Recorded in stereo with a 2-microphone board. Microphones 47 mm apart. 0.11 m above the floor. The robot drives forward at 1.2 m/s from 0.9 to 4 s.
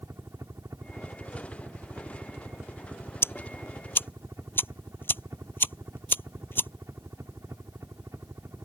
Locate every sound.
0.0 s a helicopter: 80° right
3.2 s ticking: 60° left (ahead or behind); by 6.7 s 50° left (ahead or behind)